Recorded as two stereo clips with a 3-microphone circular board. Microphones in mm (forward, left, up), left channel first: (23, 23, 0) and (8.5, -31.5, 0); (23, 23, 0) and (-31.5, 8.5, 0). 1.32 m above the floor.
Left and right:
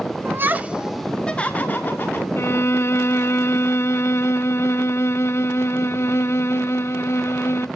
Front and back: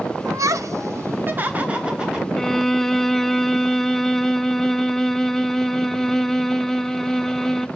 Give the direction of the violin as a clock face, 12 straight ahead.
9 o'clock.